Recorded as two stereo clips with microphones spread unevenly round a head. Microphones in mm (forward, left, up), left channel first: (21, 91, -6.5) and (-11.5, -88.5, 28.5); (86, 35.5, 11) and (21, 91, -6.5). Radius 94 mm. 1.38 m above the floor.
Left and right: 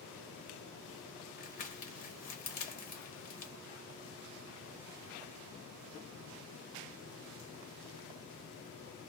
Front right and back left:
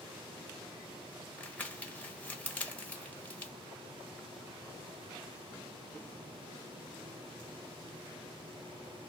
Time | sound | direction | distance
1.4 | crumpling | 35° left | 1.0 m